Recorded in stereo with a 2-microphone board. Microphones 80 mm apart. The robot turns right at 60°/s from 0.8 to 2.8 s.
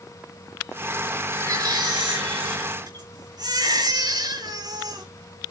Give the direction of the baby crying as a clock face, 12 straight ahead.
5 o'clock.